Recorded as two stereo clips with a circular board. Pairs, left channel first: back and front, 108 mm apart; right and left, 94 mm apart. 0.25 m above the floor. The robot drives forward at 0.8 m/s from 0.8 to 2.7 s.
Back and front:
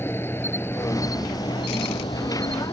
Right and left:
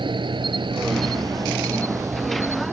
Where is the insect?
115° left; by 2.7 s 155° left.